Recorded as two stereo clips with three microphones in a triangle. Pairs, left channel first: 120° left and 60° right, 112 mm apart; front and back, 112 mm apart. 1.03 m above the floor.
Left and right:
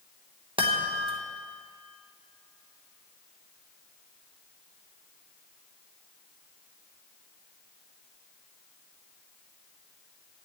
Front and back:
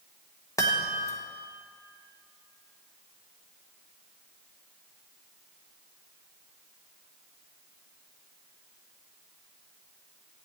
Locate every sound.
0.6 s a chime: 55° right, 1.3 m